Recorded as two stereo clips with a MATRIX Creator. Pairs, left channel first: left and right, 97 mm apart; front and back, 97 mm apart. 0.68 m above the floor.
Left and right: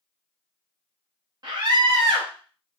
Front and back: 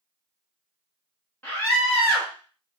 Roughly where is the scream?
Ahead right.